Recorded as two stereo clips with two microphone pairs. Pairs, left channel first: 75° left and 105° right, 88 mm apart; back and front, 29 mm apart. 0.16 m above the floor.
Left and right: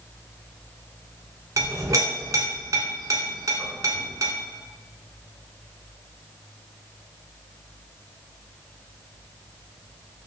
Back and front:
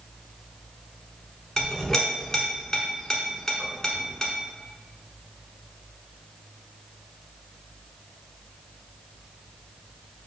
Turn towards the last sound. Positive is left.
turn(degrees=-120)